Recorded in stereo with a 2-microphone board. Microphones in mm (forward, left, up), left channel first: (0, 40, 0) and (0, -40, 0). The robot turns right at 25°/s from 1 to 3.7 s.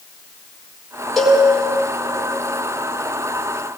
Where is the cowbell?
Centre (ahead or behind), 6 m; by 1.4 s 5° left (ahead or behind), 6 m.